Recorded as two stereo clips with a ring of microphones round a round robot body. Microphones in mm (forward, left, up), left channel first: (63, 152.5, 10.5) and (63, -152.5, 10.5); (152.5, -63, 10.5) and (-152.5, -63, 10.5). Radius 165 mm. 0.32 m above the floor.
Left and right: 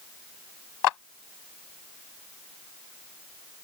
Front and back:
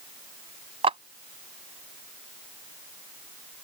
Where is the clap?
105° left.